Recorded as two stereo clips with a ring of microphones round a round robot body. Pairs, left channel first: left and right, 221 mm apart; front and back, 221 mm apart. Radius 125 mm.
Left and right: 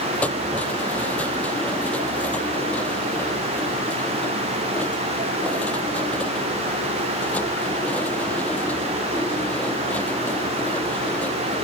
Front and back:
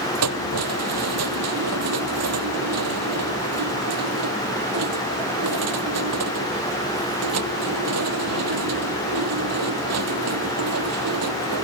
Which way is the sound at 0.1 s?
175° left.